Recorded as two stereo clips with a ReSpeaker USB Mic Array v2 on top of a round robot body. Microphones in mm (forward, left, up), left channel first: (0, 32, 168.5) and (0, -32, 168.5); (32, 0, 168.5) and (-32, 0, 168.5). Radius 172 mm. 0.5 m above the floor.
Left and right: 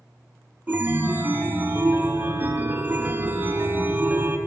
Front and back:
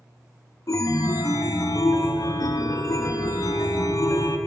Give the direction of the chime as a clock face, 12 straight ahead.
1 o'clock.